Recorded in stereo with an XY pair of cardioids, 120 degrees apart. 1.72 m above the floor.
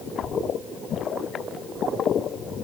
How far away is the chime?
I don't hear a chime.